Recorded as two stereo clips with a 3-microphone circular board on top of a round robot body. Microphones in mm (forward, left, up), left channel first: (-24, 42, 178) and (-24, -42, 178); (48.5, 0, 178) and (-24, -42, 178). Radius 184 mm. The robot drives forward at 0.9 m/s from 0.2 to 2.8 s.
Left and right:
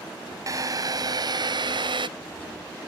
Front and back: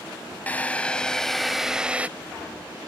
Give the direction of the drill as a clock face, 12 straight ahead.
1 o'clock.